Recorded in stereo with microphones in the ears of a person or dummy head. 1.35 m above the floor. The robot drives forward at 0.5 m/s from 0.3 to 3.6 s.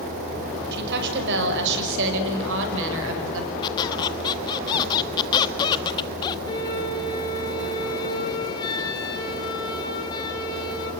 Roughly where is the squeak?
Left.